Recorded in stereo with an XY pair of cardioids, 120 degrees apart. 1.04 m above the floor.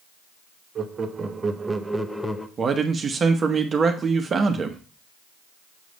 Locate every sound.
0.8 s laughter: 40° right, 1.1 m; by 2.5 s 20° left, 0.8 m
2.6 s a man speaking: 35° right, 0.9 m